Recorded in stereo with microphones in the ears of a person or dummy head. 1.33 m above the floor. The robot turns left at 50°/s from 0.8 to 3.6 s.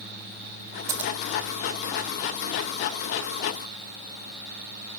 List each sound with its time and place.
0.9 s scissors: 15° right (ahead or behind), 0.6 m; by 1.1 s 5° right (ahead or behind), 0.6 m